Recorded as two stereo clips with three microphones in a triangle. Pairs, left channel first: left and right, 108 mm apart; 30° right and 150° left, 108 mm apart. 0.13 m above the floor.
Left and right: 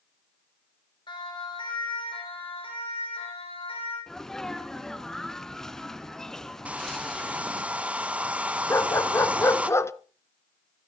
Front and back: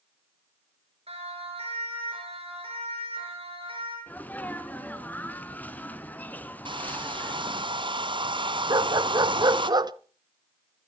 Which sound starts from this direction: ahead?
A sneeze, at 4.1 s.